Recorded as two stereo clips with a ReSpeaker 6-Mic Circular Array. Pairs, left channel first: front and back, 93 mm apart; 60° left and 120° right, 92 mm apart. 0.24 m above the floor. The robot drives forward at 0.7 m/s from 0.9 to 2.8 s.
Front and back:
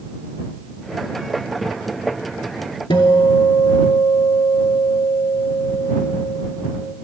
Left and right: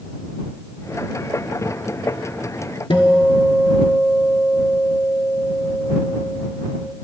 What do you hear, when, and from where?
2.9 s a guitar: 30° left, 0.7 m